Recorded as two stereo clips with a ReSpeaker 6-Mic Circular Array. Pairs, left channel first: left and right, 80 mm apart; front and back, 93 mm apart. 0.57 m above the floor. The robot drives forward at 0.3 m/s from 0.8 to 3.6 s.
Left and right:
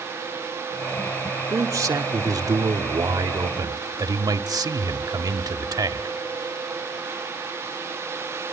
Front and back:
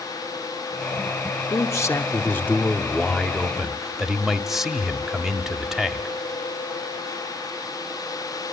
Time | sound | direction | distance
1.5 | a man speaking | 50° right | 1.0 m